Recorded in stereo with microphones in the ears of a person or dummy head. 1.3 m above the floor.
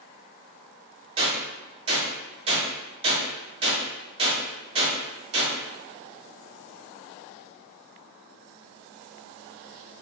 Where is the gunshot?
30° right (ahead or behind), 1.4 m.